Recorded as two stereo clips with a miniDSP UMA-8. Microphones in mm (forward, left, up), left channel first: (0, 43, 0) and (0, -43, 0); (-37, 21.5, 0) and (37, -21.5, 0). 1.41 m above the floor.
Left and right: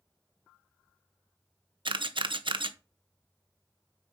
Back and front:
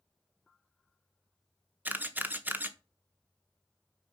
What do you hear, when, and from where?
1.9 s a camera shutter: 100° right, 0.9 m